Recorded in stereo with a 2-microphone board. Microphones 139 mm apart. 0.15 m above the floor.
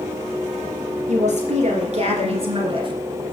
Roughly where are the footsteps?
I don't hear footsteps.